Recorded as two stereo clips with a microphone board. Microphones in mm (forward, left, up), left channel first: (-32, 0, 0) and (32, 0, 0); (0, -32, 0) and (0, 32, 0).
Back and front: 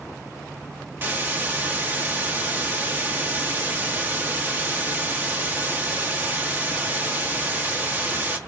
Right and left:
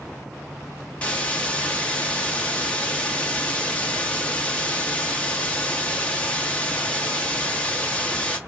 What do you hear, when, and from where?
1.0 s a hiss: 35° right, 0.8 m